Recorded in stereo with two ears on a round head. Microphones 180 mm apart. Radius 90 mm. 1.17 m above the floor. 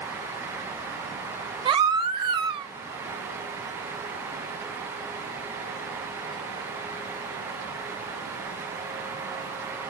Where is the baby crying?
25° right (ahead or behind), 0.6 m.